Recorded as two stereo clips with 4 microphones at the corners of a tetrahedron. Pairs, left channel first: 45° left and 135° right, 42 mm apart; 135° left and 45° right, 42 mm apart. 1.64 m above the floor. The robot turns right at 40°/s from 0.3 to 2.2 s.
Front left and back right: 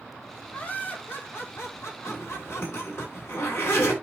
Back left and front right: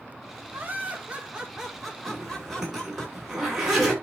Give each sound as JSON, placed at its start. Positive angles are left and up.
{"t": 0.5, "sound": "laughter", "azimuth_deg": -10, "distance_m": 4.0}
{"t": 2.1, "sound": "a zipper", "azimuth_deg": 30, "distance_m": 8.0}